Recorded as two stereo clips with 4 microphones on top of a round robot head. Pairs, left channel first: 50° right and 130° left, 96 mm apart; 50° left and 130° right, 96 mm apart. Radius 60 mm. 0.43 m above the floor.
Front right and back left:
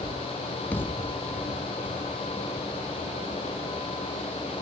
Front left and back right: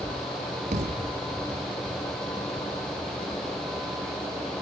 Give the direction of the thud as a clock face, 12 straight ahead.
4 o'clock.